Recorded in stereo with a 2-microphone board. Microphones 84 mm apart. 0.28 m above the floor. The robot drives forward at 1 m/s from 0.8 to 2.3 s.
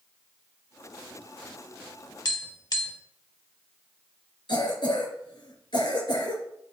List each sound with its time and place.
2.2 s tapping: 50° left (ahead or behind), 1.0 m
4.5 s a cough: 65° left (ahead or behind), 3.5 m